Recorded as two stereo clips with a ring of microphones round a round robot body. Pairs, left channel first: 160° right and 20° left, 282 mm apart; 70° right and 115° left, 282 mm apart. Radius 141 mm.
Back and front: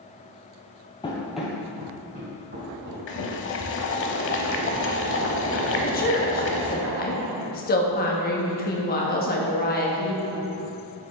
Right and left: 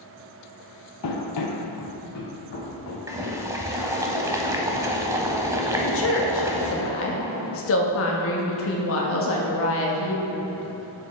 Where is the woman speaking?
105° right, 1.2 m.